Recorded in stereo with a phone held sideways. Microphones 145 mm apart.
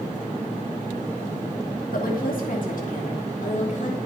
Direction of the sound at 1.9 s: 80° left.